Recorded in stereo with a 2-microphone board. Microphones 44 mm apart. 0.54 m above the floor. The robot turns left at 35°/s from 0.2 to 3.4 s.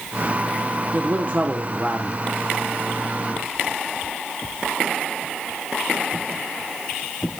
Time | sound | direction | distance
0.9 | a man speaking | 95° right | 1.1 m